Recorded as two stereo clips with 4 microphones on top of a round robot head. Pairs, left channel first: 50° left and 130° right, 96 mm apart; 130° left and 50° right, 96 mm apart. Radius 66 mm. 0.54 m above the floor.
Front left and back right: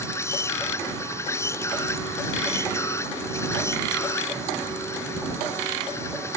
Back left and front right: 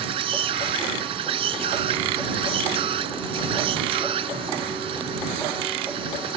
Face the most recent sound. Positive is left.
turn(degrees=-15)